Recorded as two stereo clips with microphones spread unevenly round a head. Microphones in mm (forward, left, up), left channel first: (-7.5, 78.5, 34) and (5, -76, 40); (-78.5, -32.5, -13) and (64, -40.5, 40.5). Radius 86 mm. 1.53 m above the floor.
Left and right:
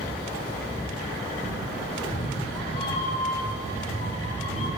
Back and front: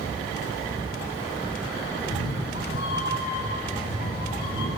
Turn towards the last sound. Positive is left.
turn(degrees=145)